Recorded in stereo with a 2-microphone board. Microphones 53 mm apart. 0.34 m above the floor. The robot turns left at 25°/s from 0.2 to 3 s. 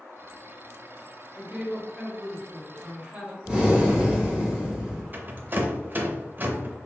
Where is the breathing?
15° right (ahead or behind), 1.2 m.